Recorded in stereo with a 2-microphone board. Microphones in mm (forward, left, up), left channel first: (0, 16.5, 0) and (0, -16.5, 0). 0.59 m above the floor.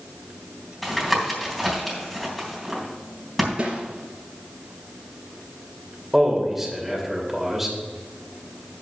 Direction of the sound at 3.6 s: 30° right (ahead or behind).